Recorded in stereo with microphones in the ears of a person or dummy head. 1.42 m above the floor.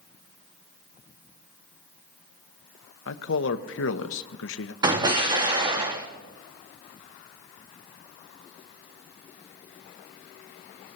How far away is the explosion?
About 1.7 m.